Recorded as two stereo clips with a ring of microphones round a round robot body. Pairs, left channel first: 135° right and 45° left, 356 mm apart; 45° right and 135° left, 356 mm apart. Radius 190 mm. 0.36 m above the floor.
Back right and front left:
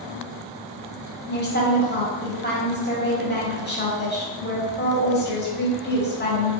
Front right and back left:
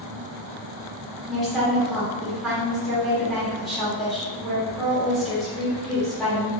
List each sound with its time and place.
1.3 s a woman speaking: 135° right, 1.2 m